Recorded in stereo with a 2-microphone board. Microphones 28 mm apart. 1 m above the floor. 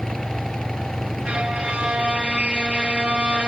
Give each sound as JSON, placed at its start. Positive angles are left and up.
{"t": 1.2, "sound": "a violin", "side_deg": -35, "distance_m": 0.7}